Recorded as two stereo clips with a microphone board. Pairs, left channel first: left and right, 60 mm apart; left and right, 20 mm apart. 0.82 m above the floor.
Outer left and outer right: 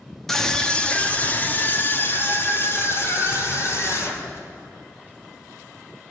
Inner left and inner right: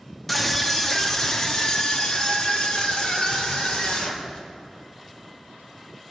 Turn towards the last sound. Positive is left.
turn(degrees=55)  # may be behind; listen again after turning